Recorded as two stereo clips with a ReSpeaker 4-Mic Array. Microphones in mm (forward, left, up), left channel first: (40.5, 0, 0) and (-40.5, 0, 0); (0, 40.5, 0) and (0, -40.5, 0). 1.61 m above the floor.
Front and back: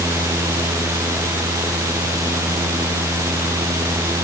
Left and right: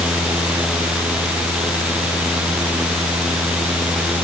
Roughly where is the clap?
I don't hear a clap.